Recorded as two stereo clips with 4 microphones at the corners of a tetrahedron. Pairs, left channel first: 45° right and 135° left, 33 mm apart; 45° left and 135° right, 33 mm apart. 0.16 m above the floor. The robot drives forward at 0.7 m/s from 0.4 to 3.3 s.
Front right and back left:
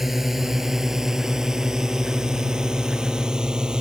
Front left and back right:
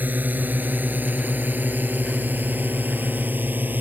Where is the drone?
140° right; by 3.8 s 155° right.